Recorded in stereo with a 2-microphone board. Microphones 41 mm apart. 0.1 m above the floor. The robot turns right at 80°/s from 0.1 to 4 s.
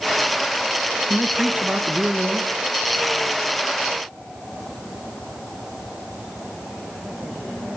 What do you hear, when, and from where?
1.1 s a man speaking: 155° right, 1.3 m; by 2.5 s 45° right, 1.3 m